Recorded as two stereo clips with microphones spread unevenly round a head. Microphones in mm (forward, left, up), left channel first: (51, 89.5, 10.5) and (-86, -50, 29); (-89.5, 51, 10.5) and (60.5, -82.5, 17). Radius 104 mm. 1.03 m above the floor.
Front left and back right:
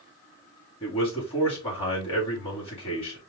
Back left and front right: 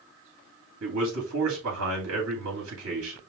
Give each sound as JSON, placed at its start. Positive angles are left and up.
{"t": 0.8, "sound": "a man speaking", "azimuth_deg": -20, "distance_m": 2.5}